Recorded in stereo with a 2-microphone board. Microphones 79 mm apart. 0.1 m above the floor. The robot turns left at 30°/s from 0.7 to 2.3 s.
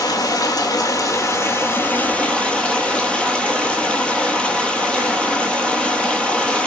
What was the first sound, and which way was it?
Running water, 65° left.